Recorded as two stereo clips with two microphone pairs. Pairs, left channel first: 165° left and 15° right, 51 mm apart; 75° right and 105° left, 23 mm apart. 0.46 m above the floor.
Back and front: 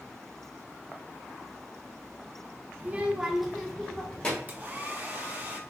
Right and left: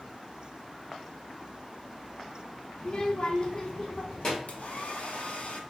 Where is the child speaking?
40° right, 0.7 m; by 4.4 s 130° right, 1.3 m.